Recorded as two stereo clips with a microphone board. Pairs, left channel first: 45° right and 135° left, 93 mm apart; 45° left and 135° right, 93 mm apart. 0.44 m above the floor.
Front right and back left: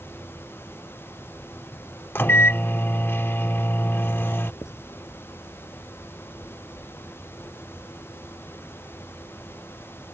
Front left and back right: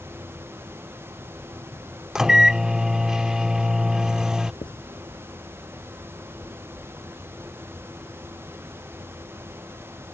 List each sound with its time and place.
2.1 s a microwave: 60° right
4.6 s writing: 15° left